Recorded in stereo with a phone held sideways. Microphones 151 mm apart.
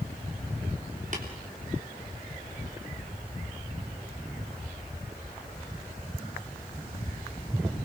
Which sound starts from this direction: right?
Tapping, at 1.1 s.